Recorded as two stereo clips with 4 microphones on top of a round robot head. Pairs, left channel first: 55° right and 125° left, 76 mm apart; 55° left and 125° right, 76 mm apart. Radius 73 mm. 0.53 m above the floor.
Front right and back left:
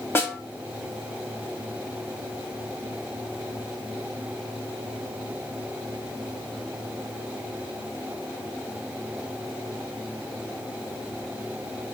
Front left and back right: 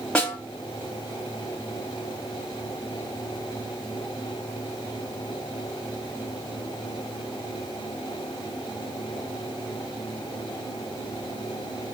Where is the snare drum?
15° right, 1.4 m.